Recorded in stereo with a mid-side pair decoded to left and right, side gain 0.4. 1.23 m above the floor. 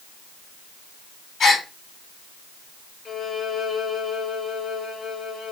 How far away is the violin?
About 1.8 m.